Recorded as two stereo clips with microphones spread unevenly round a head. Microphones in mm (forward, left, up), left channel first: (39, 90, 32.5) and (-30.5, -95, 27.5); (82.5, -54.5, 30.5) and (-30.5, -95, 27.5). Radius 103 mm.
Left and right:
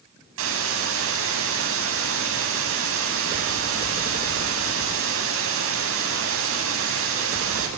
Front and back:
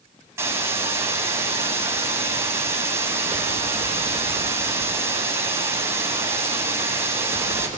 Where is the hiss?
90° right, 9.5 m.